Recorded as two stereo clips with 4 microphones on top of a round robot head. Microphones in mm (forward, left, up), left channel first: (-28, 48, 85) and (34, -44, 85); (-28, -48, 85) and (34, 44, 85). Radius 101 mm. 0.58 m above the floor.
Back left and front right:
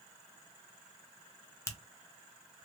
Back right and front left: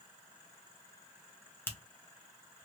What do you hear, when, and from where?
1.7 s a finger snap: 175° left, 1.2 m